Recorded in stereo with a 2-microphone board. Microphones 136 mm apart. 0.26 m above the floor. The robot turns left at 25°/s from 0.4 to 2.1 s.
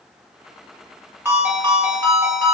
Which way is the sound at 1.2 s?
15° right (ahead or behind).